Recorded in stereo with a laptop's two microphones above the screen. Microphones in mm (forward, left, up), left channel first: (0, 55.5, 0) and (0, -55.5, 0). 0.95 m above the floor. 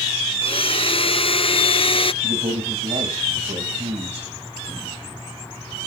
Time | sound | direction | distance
0.4 | a blender | 55° left (ahead or behind) | 0.6 m
2.2 | a man speaking | 90° right | 5 m